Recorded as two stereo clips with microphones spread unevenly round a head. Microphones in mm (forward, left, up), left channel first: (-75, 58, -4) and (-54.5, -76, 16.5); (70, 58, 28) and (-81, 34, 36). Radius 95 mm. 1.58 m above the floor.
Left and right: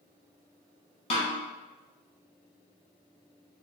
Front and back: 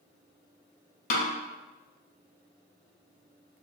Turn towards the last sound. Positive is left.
turn(degrees=35)